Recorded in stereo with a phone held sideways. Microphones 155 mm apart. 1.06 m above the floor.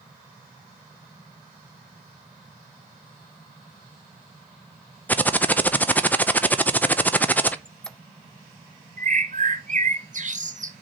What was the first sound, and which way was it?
Typing on a keyboard, 10° left (ahead or behind).